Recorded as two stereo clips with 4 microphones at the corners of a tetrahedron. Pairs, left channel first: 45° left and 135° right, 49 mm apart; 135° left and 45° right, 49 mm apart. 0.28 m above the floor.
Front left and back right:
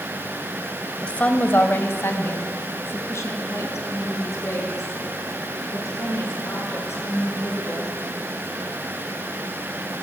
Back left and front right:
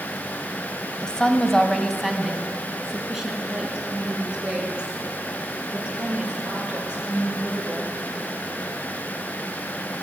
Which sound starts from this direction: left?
A woman speaking, at 1.0 s.